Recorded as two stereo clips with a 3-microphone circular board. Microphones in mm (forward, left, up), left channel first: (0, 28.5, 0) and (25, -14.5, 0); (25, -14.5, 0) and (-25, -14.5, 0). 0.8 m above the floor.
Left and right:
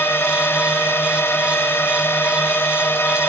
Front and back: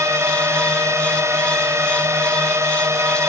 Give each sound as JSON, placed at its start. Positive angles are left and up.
{"t": 0.0, "sound": "a drone", "azimuth_deg": 160}